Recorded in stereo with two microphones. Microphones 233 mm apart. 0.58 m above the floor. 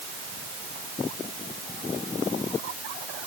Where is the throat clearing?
I don't hear throat clearing.